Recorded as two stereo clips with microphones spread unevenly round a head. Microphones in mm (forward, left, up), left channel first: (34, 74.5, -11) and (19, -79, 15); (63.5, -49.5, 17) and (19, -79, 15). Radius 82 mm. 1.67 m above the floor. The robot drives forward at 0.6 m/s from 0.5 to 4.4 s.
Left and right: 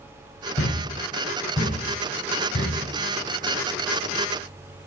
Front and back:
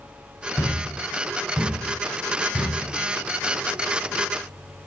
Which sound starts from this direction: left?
A thud, at 0.6 s.